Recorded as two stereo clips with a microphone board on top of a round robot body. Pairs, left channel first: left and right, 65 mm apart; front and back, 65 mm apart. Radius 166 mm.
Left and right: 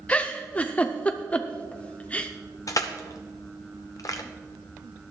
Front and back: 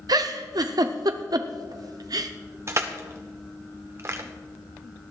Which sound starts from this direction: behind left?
Crushing, at 2.7 s.